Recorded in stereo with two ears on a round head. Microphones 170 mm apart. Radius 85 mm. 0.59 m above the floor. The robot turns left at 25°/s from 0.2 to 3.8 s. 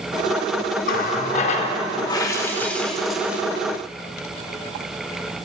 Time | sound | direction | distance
0.8 | a running tap | 55° left | 0.8 m